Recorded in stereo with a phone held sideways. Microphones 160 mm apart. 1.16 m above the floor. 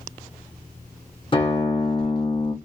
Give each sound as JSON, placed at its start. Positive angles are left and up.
{"t": 1.3, "sound": "a guitar", "side_deg": 35, "distance_m": 0.8}